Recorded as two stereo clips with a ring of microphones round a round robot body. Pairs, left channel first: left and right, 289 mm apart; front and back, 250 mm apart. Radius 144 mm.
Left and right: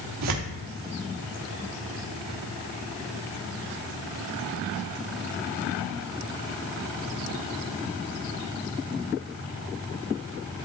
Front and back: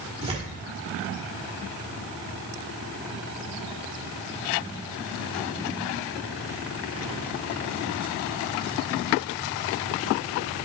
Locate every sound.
0.2 s tearing paper: 110° right, 1.3 m